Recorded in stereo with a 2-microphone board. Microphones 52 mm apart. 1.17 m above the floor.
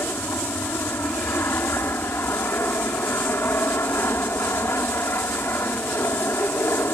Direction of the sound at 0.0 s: 50° left (ahead or behind).